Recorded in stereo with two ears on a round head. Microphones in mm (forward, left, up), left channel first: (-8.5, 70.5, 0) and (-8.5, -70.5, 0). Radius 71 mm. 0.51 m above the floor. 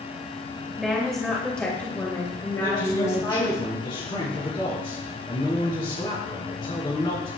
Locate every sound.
0.8 s a woman speaking: centre (ahead or behind), 2.5 m; by 3.6 s 25° left (ahead or behind), 3 m
2.6 s a man speaking: 35° left (ahead or behind), 5.5 m